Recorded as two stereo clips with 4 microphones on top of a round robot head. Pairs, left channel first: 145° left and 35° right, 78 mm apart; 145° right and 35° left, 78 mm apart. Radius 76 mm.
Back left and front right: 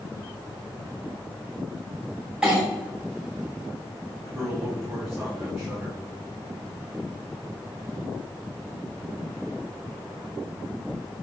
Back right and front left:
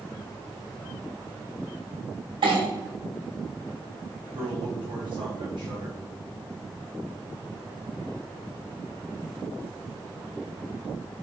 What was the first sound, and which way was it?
A clink, 40° left.